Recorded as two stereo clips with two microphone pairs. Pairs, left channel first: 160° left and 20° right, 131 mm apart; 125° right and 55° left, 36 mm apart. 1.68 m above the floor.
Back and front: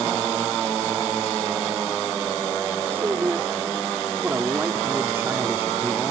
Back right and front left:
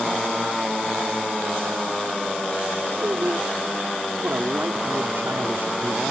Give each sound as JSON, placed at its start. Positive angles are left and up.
{"t": 2.9, "sound": "a man speaking", "azimuth_deg": 50}